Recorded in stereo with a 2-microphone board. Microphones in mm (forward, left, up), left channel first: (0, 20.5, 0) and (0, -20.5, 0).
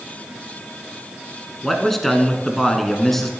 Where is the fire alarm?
I don't hear a fire alarm.